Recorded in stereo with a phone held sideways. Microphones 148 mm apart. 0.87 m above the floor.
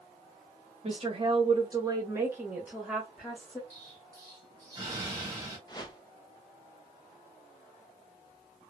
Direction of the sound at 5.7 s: 30° left (ahead or behind).